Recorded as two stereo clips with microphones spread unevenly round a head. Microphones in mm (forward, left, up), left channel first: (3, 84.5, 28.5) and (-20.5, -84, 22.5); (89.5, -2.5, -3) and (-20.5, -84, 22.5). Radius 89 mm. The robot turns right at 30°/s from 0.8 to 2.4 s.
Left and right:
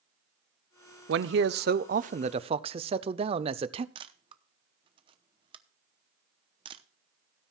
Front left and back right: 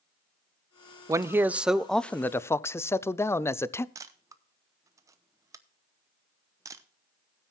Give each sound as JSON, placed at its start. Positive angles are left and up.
{"t": 1.1, "sound": "a man speaking", "azimuth_deg": -75, "distance_m": 0.6}
{"t": 4.0, "sound": "a camera shutter", "azimuth_deg": -135, "distance_m": 0.7}